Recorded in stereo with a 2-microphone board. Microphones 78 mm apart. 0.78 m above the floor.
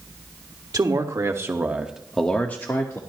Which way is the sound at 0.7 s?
55° right (ahead or behind).